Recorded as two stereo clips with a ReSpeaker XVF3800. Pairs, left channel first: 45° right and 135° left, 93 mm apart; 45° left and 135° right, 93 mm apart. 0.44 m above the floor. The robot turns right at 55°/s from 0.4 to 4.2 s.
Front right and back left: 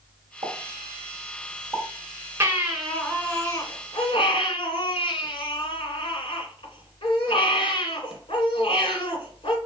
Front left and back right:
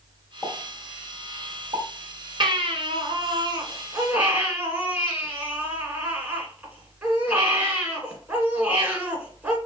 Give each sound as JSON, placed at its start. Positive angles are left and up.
{"t": 0.4, "sound": "a pop", "azimuth_deg": 130, "distance_m": 2.0}
{"t": 2.4, "sound": "a baby crying", "azimuth_deg": -160, "distance_m": 1.6}